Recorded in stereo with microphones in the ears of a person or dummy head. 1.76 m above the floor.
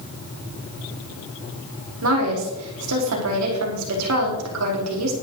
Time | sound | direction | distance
2.0 | a woman speaking | 80° right | 4.5 m